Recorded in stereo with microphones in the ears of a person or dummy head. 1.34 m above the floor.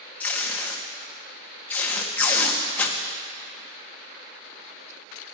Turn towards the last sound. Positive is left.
turn(degrees=10)  # may be behind; listen again after turning